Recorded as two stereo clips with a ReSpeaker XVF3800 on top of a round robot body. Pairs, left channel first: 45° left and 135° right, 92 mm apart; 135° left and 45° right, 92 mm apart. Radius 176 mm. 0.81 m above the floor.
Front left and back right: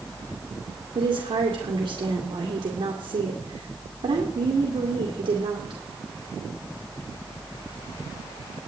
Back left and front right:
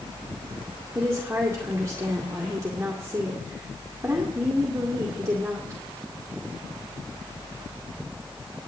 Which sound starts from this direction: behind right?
A woman speaking, at 0.9 s.